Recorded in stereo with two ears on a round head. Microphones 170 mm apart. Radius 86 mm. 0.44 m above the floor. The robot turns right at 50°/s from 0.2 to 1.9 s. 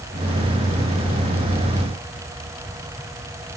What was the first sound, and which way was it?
Only background noise.